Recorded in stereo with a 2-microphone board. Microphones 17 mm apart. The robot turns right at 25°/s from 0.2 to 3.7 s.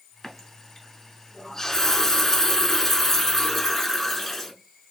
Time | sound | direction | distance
0.2 | a running tap | 20° left (ahead or behind) | 0.8 m